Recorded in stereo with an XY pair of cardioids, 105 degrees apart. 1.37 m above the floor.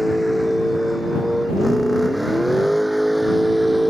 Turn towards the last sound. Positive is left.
turn(degrees=-10)